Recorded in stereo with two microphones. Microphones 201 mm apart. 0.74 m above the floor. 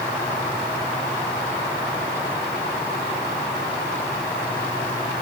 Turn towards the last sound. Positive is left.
No sound to turn to.